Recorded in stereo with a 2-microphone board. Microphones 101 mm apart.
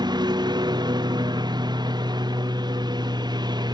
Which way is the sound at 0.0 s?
45° right (ahead or behind).